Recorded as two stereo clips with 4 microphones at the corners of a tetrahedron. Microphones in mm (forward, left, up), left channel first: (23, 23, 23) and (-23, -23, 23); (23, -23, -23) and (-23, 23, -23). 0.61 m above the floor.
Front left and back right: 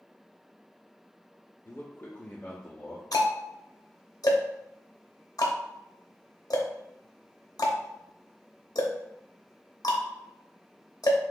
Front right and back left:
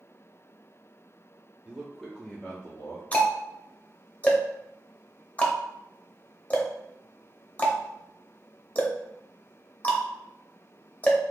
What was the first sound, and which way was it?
A man speaking, 75° left.